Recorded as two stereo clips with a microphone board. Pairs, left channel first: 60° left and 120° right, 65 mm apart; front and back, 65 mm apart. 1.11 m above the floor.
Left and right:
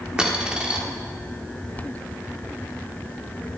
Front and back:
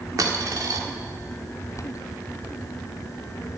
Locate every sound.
0.2 s a dropped coin: 165° left, 1.3 m